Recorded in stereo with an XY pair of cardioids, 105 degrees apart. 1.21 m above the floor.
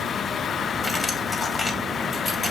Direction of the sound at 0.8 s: 35° left.